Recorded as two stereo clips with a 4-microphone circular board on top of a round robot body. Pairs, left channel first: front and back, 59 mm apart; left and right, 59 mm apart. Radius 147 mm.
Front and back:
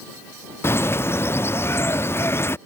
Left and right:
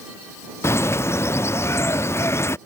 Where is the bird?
45° left.